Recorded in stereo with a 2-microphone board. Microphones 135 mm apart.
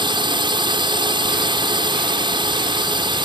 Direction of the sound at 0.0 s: 35° right (ahead or behind).